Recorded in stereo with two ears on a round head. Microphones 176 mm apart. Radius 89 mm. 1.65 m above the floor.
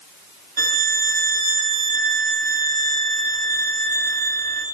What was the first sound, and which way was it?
A violin, 50° right (ahead or behind).